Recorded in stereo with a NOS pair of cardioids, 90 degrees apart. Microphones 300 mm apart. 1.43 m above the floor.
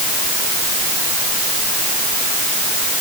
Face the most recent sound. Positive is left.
No sound to turn to.